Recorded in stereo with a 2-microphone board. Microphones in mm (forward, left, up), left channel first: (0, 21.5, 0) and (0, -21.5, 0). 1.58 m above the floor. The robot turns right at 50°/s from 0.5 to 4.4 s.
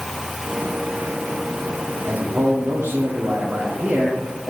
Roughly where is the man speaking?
Behind right.